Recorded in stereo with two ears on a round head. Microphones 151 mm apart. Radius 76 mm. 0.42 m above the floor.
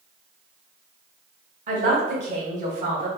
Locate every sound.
1.7 s a man speaking: 40° right (ahead or behind), 1.0 m